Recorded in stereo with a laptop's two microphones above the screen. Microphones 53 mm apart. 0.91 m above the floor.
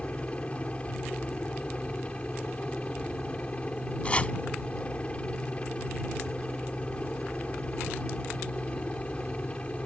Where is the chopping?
25° left (ahead or behind).